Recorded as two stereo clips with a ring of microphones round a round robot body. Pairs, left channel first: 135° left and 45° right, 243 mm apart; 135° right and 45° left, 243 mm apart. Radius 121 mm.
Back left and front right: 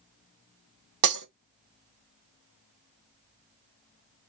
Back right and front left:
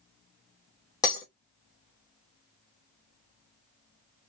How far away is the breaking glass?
About 1.4 m.